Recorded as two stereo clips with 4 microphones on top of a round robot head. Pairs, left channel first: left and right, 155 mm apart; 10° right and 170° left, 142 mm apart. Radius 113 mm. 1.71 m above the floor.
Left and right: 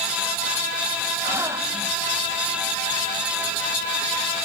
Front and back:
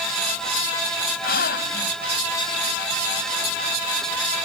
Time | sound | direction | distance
1.2 | a gasp | 15° right | ?